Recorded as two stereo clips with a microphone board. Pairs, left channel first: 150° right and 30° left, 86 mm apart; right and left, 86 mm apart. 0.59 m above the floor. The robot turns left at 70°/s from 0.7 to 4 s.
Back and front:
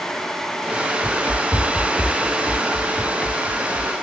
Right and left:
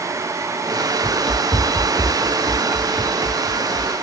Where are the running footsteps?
65° right; by 4.0 s 80° left.